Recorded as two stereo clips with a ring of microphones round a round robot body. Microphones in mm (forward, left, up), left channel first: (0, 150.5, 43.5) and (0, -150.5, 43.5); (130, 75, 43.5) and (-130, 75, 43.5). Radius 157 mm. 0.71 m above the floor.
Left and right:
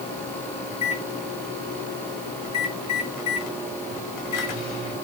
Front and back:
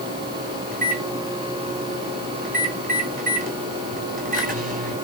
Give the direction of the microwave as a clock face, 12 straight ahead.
8 o'clock.